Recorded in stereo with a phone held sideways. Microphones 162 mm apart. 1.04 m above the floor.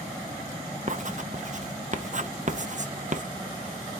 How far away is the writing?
About 0.5 m.